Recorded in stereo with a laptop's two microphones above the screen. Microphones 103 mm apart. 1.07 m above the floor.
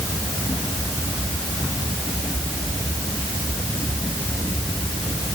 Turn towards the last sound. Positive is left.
No sound to turn to.